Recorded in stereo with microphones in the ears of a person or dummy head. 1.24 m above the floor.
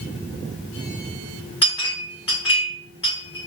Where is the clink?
30° left (ahead or behind), 1.0 m.